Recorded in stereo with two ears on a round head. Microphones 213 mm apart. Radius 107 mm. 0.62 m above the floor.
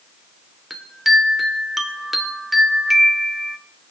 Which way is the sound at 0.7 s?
Centre (ahead or behind).